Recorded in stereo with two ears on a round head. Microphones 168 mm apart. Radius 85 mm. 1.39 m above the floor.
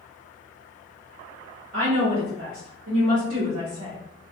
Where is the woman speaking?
80° right, 1.5 m; by 4.0 s 25° right (ahead or behind), 1.0 m.